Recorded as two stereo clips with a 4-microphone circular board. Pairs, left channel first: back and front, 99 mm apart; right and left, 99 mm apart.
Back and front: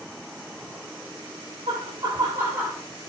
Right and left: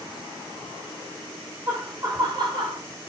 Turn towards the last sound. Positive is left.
turn(degrees=85)